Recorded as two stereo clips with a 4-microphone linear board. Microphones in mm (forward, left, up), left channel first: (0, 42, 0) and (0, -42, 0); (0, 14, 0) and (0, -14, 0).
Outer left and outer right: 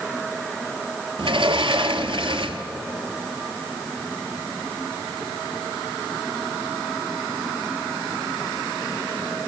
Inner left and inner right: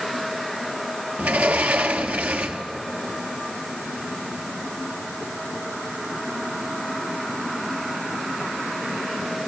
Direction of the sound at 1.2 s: 80° right.